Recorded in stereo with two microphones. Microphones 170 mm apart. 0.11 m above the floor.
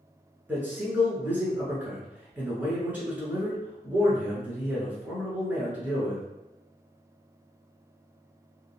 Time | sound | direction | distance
0.5 | a man speaking | 10° right (ahead or behind) | 1.1 m